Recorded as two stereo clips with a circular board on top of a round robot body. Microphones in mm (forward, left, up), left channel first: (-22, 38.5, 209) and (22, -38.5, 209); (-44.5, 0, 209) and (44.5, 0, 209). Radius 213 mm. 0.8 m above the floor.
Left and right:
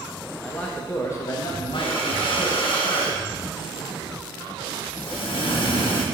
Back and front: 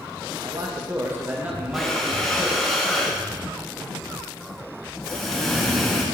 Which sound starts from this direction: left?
Breathing, at 1.7 s.